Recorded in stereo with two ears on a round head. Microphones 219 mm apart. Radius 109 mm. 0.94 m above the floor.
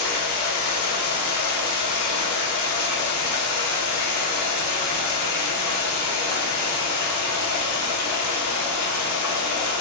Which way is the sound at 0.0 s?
75° left (ahead or behind).